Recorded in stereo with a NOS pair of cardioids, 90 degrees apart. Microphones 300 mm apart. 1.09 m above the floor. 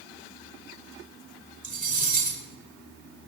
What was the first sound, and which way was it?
Cutlery clinking, 25° right.